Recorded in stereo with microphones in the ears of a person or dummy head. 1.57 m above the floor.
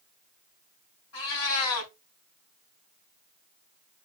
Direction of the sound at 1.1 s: 70° left (ahead or behind).